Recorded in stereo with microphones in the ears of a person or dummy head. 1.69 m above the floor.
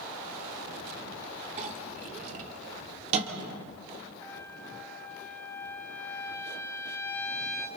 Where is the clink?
35° right (ahead or behind), 2.5 m.